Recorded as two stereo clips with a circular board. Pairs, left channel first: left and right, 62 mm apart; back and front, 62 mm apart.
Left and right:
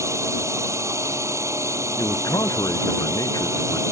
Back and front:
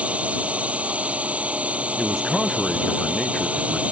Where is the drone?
65° right.